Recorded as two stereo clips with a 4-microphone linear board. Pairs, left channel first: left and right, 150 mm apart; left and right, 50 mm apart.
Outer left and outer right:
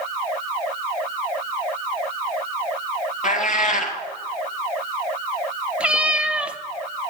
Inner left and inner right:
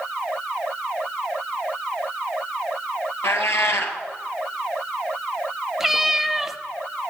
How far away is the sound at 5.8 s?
About 0.6 m.